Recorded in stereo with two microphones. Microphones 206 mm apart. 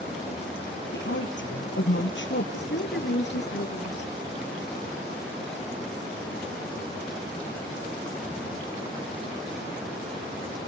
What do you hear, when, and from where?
0.9 s a woman speaking: 65° left (ahead or behind), 4.5 m
2.5 s a woman speaking: 60° left (ahead or behind), 3 m